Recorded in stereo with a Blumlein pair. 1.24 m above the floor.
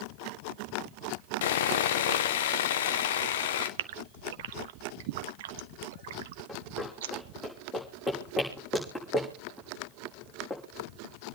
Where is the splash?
No splash in this recording.